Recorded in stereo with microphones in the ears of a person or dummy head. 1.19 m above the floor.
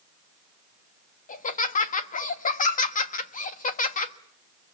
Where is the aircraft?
No aircraft in this recording.